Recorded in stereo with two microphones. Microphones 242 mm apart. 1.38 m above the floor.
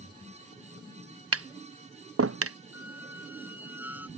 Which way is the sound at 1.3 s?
70° right (ahead or behind).